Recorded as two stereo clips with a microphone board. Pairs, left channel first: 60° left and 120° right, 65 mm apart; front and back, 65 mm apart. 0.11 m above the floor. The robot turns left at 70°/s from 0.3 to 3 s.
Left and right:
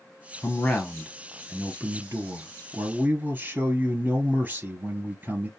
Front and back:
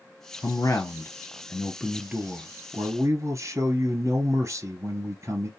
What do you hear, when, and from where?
0.4 s a man speaking: 5° left, 1.6 m; by 5.5 s 175° right, 1.6 m